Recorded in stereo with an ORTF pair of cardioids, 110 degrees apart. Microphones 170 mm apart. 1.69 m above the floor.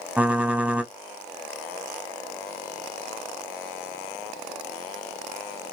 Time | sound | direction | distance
0.2 | typing on a keyboard | 5° right | 0.8 m